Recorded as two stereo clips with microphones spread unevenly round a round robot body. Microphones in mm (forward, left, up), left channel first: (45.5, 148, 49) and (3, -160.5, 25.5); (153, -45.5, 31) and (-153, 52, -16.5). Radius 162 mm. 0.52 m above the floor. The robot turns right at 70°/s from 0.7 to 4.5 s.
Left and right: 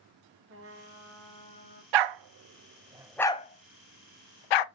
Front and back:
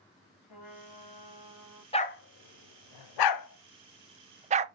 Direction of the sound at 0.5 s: 45° right.